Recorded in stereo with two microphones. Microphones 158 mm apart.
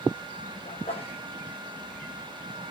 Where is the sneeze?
40° left (ahead or behind), 6 m.